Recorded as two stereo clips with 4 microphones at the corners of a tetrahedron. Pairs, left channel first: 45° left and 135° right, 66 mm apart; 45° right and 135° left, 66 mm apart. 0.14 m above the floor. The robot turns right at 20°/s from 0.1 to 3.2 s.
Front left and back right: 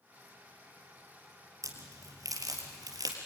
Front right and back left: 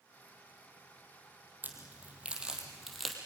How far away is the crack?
About 3.5 m.